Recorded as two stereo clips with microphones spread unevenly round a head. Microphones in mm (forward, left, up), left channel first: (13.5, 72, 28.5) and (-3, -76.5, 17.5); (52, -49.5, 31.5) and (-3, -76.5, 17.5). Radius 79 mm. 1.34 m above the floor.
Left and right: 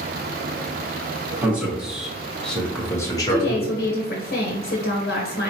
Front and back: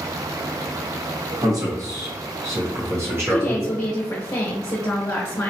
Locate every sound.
1.4 s a man speaking: 175° right, 1.7 m; by 3.8 s 130° left, 1.0 m
3.3 s a woman speaking: 85° left, 0.8 m